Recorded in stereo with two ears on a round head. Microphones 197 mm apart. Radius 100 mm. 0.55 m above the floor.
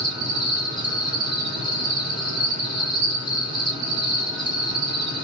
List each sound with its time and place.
0.0 s an insect: 20° left (ahead or behind), 2.5 m